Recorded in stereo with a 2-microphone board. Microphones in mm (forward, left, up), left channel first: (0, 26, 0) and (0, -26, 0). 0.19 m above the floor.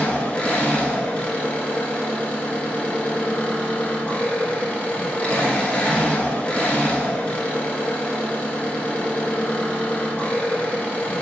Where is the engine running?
25° left (ahead or behind), 1.0 m.